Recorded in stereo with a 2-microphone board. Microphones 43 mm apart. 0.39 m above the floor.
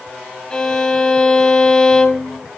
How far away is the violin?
About 1.4 m.